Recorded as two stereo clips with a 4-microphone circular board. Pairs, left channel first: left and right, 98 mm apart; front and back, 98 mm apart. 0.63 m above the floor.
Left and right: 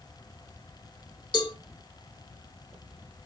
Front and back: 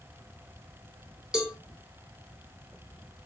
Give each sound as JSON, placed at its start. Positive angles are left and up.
{"t": 1.3, "sound": "a cowbell", "azimuth_deg": 100, "distance_m": 1.8}